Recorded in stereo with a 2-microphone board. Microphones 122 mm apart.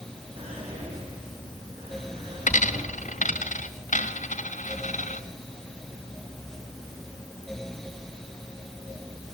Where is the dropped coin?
75° left (ahead or behind), 1.8 m.